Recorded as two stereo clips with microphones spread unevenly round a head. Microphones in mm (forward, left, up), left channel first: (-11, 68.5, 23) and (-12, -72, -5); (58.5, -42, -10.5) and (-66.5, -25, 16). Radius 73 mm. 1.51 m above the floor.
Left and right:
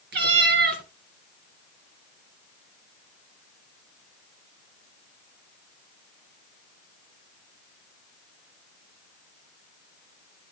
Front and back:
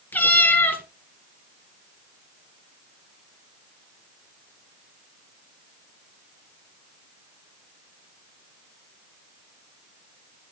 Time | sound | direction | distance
0.1 | a cat meowing | 90° right | 2 m